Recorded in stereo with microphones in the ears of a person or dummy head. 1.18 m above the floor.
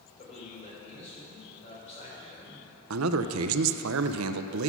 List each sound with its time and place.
0.2 s a man speaking: 40° left (ahead or behind), 4 m
2.9 s a man speaking: 80° right, 0.5 m